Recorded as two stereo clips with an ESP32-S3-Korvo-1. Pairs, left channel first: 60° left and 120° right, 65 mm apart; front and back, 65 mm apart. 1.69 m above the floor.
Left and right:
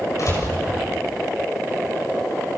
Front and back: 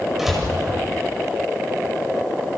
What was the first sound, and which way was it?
A door slam, 95° left.